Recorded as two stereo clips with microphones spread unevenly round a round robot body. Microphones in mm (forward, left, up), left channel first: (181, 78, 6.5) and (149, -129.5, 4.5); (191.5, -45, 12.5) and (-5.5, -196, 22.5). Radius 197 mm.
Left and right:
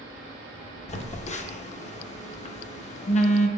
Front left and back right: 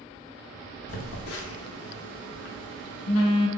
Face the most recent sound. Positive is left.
turn(degrees=25)